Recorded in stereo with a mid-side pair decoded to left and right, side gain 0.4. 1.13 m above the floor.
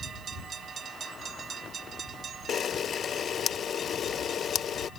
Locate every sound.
2.5 s a camera shutter: 60° left